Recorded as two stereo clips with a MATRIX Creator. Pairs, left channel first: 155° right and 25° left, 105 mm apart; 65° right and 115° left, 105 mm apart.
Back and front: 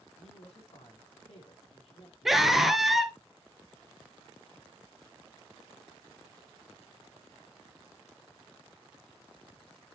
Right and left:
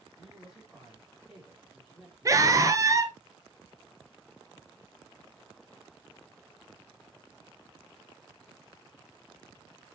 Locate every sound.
0.2 s a woman speaking: 160° right, 4 m
2.2 s a scream: 110° left, 1.4 m